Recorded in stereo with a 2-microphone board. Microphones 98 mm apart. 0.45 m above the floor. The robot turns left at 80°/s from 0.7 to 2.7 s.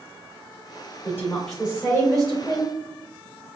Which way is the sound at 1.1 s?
35° left.